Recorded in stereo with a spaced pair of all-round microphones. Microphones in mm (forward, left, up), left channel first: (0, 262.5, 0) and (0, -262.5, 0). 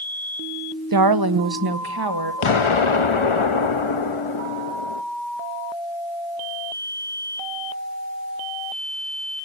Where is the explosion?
65° left (ahead or behind), 0.8 m.